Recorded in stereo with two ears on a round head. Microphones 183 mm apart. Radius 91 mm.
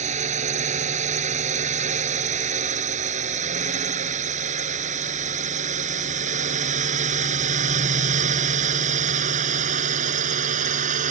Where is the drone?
35° right (ahead or behind); by 11.1 s 40° right (ahead or behind).